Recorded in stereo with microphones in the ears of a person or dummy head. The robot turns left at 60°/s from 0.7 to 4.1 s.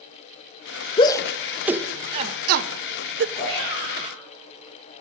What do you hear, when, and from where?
1.0 s a shout: 25° left (ahead or behind), 0.6 m; by 3.2 s 55° right (ahead or behind), 0.6 m
3.4 s a shout: 35° left, 8 m; by 4.2 s 10° right, 8 m